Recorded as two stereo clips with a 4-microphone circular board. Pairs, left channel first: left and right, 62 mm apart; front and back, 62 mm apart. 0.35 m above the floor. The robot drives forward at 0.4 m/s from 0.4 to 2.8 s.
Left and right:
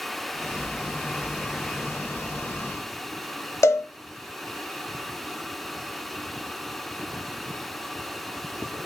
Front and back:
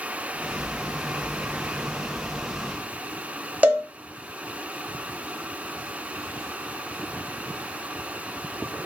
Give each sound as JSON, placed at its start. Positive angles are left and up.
{"t": 3.6, "sound": "a cowbell", "azimuth_deg": 115, "distance_m": 0.7}